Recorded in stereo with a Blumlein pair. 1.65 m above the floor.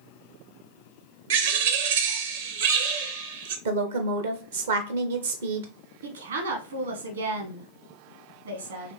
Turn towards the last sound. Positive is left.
turn(degrees=-65)